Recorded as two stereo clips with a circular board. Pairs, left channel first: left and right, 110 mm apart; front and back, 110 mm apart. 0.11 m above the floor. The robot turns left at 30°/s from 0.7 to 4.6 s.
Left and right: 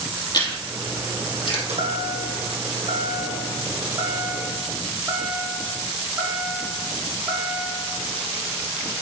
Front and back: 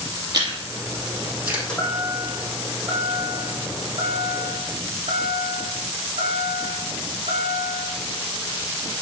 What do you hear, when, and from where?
0.3 s chewing: 135° left, 2.5 m; by 1.6 s 105° left, 2.5 m
1.7 s a chime: 80° right, 2.5 m; by 7.9 s 170° right, 2.5 m